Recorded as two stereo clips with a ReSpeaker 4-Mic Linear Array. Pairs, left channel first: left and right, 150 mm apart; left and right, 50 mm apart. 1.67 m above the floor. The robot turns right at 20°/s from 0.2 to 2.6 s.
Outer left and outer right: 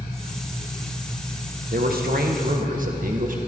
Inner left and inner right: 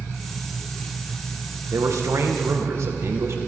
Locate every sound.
1.7 s a man speaking: 80° right, 1.9 m; by 3.4 s 65° right (ahead or behind), 1.9 m